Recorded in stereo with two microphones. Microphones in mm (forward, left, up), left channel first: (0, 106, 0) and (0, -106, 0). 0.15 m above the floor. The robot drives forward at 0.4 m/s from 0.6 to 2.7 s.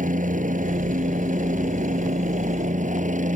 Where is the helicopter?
40° right (ahead or behind); by 3.4 s 35° right (ahead or behind).